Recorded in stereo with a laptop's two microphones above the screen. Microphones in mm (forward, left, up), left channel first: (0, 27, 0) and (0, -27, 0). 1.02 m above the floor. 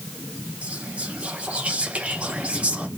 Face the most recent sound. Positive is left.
turn(degrees=-25)  # may be behind; listen again after turning